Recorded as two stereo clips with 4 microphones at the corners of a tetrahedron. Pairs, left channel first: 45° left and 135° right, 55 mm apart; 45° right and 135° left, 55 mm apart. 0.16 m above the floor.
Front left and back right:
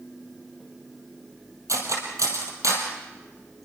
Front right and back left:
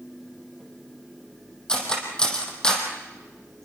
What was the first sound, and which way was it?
Cutlery clinking, 120° right.